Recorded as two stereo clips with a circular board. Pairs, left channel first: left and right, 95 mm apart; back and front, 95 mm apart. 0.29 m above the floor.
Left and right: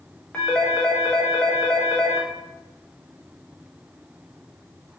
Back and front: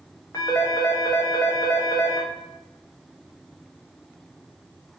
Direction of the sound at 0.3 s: 160° left.